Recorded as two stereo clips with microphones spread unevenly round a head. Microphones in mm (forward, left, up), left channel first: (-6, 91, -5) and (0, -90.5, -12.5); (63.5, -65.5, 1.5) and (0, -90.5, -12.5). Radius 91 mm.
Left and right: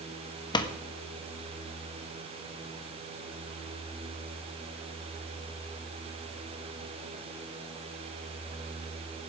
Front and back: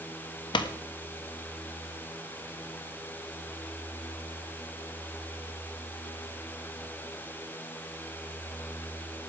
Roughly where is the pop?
Ahead left.